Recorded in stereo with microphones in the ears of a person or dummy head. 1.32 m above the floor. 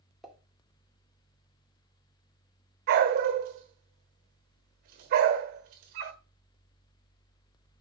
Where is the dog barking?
50° right (ahead or behind), 1.4 m.